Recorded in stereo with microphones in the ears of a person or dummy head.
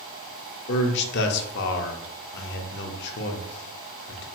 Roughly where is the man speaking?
Left.